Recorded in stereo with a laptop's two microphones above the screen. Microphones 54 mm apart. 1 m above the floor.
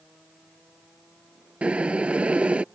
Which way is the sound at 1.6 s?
20° right (ahead or behind).